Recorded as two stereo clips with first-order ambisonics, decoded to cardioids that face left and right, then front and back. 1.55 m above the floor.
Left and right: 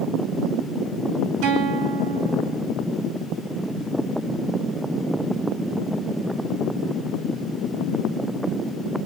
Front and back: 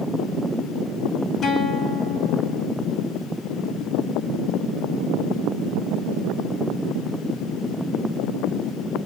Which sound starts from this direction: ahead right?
A guitar, at 1.4 s.